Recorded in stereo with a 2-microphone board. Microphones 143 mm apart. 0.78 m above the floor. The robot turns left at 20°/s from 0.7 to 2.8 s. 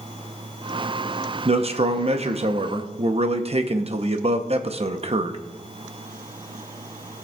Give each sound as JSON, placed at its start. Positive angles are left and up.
{"t": 1.4, "sound": "a man speaking", "side_deg": -45, "distance_m": 0.7}